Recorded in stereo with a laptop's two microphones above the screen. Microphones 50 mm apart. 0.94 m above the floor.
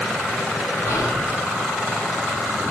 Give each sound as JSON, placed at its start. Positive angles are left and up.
{"t": 0.8, "sound": "whispering", "side_deg": 70, "distance_m": 6.5}